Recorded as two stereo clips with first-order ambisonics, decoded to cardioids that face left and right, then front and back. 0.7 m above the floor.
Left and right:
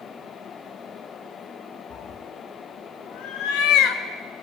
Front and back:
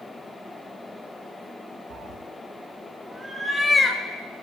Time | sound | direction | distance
1.9 | a cat meowing | 140° left | 1.4 m